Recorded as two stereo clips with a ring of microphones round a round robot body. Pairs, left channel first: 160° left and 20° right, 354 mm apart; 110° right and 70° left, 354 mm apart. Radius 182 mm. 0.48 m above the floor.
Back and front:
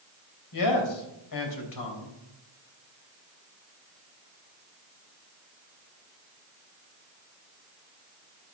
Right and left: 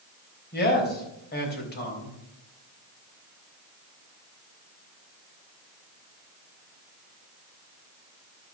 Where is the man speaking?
175° right, 3.5 m.